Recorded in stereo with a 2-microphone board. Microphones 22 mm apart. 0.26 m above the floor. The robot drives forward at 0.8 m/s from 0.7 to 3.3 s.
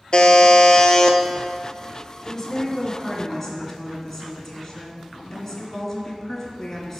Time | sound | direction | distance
0.1 | a buzzer | 45° left (ahead or behind) | 0.7 m
2.2 | a woman speaking | 25° left (ahead or behind) | 1.6 m